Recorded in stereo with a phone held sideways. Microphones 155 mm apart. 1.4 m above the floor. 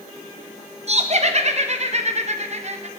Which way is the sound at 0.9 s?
45° right (ahead or behind).